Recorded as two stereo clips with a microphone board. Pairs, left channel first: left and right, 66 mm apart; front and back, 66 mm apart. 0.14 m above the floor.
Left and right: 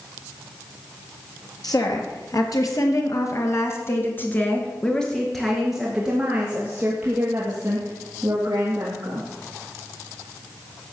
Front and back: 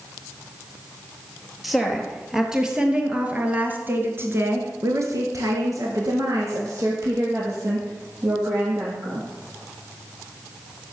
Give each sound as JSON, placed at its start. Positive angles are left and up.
{"t": 1.6, "sound": "a woman speaking", "azimuth_deg": 90, "distance_m": 2.5}